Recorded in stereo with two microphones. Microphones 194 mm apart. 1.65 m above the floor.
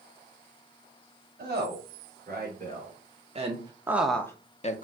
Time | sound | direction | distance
1.4 | a woman speaking | 55° right (ahead or behind) | 1.6 m